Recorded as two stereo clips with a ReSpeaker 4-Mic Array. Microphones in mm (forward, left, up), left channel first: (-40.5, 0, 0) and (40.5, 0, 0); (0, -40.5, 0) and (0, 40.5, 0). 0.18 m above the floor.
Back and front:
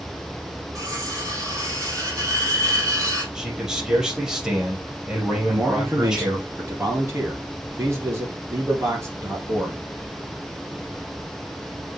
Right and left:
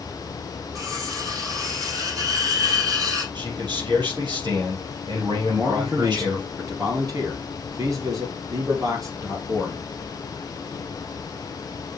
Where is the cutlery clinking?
50° left, 3.5 m.